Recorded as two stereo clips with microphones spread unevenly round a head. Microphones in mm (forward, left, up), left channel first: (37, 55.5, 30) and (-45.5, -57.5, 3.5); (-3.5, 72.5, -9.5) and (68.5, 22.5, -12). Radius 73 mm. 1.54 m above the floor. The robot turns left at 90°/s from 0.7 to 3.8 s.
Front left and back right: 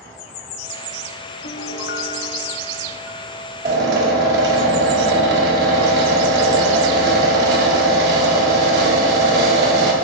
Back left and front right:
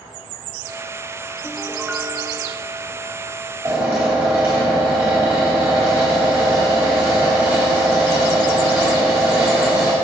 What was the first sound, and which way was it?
A piano, 80° left.